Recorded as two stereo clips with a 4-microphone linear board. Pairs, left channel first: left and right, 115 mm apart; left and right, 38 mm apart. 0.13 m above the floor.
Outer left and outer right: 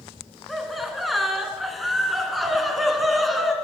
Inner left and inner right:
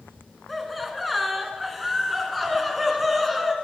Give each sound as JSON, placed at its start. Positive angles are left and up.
{"t": 0.5, "sound": "laughter", "side_deg": 0, "distance_m": 1.1}